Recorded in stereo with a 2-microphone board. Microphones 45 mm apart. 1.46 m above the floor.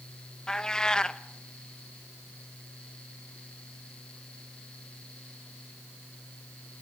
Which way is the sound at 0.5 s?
15° left (ahead or behind).